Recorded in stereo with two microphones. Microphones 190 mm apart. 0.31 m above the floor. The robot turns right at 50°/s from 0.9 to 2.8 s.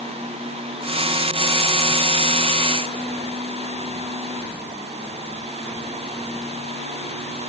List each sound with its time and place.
Only background noise.